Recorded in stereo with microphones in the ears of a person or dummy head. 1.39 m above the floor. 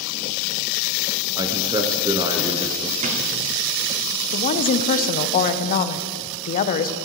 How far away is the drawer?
About 1.5 m.